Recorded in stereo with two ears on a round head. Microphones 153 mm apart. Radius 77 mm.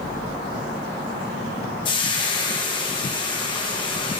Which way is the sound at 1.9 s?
30° left (ahead or behind).